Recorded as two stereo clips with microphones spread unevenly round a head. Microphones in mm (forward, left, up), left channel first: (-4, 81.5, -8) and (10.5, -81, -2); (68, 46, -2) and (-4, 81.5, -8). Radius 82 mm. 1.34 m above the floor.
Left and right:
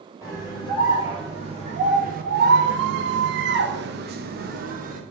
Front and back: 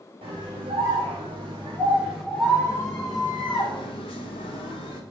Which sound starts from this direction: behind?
A scream, at 0.2 s.